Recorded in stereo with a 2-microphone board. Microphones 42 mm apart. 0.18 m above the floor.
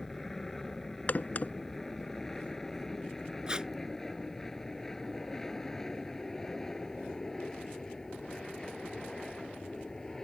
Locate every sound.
0.0 s an aircraft: 5° left (ahead or behind); by 10.2 s 10° left (ahead or behind)
1.1 s a crack: 40° left (ahead or behind)
3.5 s tape being pulled: 20° right (ahead or behind)